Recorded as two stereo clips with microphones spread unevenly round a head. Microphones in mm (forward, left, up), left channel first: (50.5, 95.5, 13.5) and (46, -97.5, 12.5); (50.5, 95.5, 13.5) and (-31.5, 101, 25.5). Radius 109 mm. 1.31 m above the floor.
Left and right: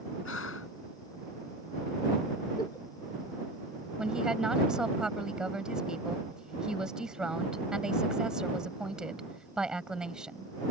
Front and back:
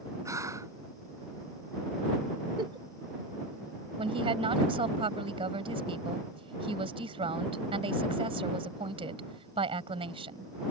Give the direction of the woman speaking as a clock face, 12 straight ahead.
6 o'clock.